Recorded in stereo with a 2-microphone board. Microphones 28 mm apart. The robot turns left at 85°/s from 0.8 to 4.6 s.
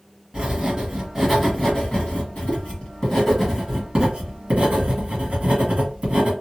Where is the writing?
135° right, 1.5 m; by 6.3 s 100° right, 1.5 m.